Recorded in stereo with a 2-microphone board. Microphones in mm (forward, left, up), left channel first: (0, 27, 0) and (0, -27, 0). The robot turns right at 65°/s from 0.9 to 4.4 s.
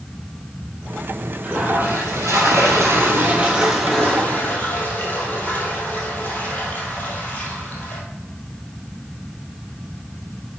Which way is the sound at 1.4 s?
155° right.